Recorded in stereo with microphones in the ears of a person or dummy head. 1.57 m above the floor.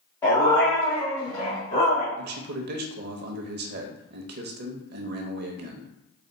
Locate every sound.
0.2 s a dog barking: 20° left (ahead or behind), 1.7 m; by 2.1 s 45° left (ahead or behind), 2.5 m
2.2 s a man speaking: 60° right (ahead or behind), 0.8 m